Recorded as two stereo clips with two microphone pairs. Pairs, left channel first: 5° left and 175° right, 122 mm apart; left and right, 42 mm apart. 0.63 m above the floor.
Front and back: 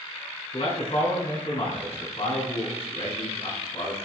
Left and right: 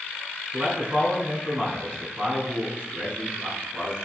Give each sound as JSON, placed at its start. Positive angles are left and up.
{"t": 0.5, "sound": "a man speaking", "azimuth_deg": -30, "distance_m": 7.5}